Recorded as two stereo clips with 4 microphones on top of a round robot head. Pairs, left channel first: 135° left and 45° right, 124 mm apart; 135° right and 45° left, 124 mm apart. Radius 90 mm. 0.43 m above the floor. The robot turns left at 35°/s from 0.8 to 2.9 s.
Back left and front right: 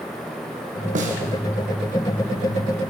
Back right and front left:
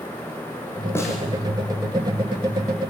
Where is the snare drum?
65° right, 5 m; by 1.2 s 75° right, 5 m.